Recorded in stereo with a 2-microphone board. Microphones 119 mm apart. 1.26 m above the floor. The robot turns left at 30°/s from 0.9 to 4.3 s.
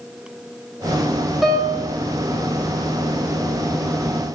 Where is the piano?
Centre (ahead or behind), 0.5 m; by 1.9 s 15° right (ahead or behind), 0.5 m.